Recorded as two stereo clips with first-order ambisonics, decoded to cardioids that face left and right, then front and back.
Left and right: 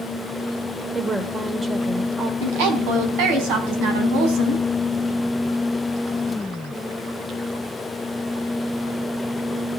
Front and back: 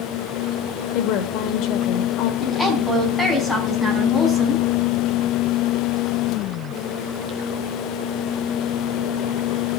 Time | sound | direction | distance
0.9 | a woman speaking | 15° right | 1.5 m
2.4 | a woman speaking | 85° right | 4.5 m